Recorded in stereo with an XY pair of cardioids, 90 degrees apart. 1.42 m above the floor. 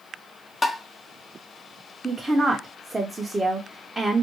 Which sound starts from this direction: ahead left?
Tapping, at 0.6 s.